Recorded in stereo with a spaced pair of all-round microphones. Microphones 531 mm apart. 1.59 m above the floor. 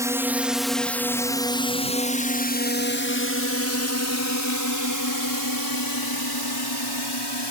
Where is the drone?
5° right (ahead or behind); by 7.5 s 50° left (ahead or behind).